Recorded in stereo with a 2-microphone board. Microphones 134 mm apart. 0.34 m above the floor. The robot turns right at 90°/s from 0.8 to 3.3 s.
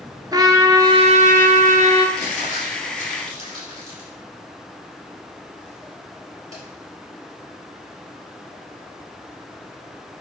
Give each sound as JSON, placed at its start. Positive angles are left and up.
{"t": 0.3, "sound": "a trumpet", "azimuth_deg": -150, "distance_m": 0.9}
{"t": 2.2, "sound": "crumpling", "side_deg": 40, "distance_m": 3.5}